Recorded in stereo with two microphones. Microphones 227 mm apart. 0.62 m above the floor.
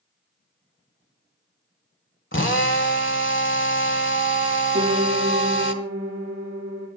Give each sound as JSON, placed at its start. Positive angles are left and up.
{"t": 2.3, "sound": "a drill", "side_deg": 60, "distance_m": 1.6}
{"t": 4.7, "sound": "a piano", "side_deg": -30, "distance_m": 8.0}